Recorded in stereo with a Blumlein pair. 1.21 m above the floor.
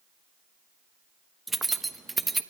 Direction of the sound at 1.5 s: 10° right.